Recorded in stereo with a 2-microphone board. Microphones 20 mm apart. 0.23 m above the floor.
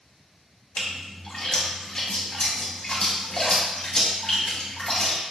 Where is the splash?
40° left (ahead or behind), 1.1 m.